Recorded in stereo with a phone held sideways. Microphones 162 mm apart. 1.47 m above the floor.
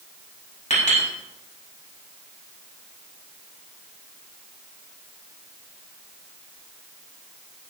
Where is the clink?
45° left (ahead or behind), 6.5 m.